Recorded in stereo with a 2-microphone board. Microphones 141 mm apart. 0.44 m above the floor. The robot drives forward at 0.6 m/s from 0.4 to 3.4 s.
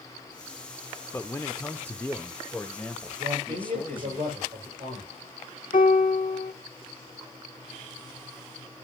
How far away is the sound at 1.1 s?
About 0.8 m.